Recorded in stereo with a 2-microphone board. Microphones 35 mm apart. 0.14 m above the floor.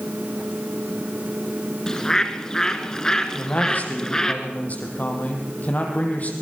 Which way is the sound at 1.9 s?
20° left (ahead or behind).